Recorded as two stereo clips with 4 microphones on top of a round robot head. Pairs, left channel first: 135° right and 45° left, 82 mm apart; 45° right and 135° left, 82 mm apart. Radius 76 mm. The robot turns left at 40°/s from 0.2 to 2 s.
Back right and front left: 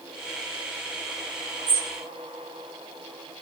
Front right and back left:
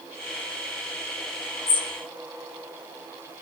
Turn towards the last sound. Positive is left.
turn(degrees=-30)